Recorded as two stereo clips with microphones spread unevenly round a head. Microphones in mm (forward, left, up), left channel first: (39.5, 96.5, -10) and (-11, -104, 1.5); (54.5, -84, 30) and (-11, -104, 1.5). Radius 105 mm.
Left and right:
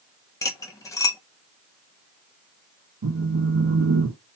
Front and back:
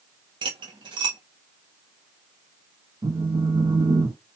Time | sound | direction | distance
0.4 | cutlery clinking | 150° left | 0.8 m
3.0 | a phone buzzing | 135° right | 1.1 m